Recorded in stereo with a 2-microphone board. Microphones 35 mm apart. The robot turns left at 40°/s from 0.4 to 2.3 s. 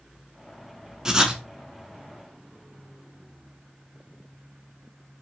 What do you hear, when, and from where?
1.1 s writing: 20° right (ahead or behind), 0.5 m; by 1.4 s 30° right (ahead or behind), 0.5 m